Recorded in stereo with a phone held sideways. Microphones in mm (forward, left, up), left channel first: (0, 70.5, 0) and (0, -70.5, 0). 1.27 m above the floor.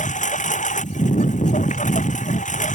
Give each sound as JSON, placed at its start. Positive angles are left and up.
{"t": 0.0, "sound": "a lawn mower", "side_deg": 60}